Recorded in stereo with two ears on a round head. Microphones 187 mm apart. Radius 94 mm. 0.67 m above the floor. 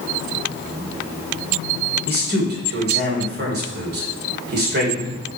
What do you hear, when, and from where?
2.1 s a man speaking: 50° right (ahead or behind), 3 m